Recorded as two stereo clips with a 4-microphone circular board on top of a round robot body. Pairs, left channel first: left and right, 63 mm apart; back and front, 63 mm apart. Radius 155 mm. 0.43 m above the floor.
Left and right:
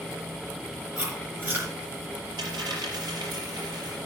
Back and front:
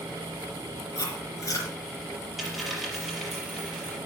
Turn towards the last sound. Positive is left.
turn(degrees=-90)